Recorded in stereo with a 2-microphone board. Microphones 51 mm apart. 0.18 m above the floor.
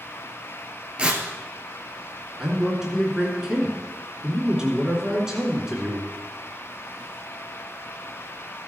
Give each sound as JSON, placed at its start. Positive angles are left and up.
{"t": 1.0, "sound": "tearing paper", "side_deg": -20, "distance_m": 1.4}
{"t": 2.4, "sound": "a man speaking", "side_deg": -10, "distance_m": 2.5}